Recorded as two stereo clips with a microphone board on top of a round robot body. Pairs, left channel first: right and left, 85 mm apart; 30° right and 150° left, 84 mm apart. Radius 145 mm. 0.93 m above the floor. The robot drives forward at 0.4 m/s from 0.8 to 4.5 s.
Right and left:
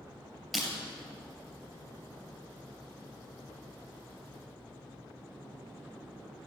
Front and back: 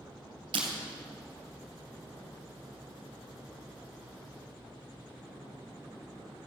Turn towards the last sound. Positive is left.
turn(degrees=180)